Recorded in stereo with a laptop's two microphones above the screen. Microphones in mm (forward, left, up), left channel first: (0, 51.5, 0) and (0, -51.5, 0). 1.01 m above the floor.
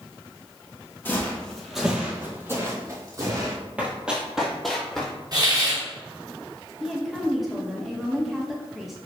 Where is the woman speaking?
5° right (ahead or behind), 1.0 m.